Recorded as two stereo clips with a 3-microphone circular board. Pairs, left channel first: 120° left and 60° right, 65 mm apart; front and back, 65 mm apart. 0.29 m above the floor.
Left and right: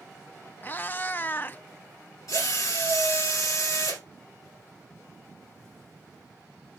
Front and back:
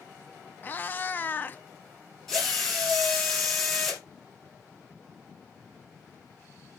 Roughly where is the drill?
Left.